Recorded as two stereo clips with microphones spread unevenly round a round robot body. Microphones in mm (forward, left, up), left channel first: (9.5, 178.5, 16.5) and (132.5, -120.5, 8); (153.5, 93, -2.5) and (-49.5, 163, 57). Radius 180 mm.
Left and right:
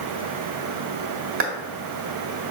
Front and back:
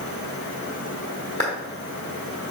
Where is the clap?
125° right, 1.3 m.